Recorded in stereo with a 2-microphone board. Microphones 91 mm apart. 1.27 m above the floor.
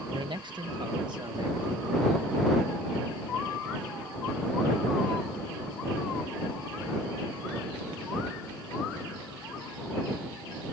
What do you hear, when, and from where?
0.1 s a man speaking: 55° right (ahead or behind)